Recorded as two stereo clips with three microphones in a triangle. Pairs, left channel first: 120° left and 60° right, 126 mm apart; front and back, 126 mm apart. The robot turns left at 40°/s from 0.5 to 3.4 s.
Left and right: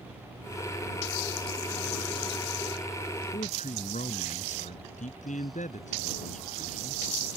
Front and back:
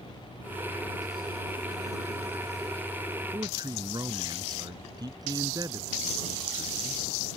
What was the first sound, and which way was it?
A man speaking, 125° left.